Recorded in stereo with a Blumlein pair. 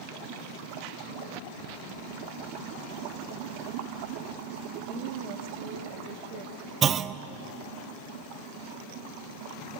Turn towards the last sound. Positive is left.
turn(degrees=-25)